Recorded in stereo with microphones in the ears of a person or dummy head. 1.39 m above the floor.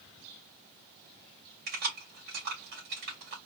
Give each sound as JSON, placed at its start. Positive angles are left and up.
{"t": 1.7, "sound": "keys jangling", "side_deg": -55, "distance_m": 2.0}